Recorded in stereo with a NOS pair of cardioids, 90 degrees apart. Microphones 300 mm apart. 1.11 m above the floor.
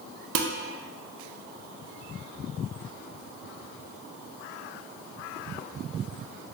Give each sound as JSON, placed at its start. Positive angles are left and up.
{"t": 0.3, "sound": "dishes clattering", "azimuth_deg": -55, "distance_m": 0.6}